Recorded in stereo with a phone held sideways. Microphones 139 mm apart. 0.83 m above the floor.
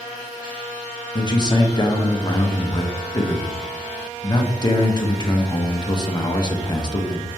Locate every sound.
1.1 s a man speaking: 30° left (ahead or behind), 0.5 m